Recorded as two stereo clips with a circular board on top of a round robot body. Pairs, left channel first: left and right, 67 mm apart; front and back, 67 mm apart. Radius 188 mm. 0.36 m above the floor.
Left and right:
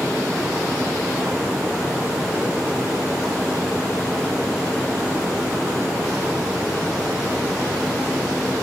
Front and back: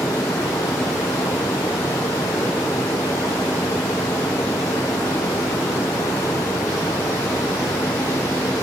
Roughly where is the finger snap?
I don't hear a finger snap.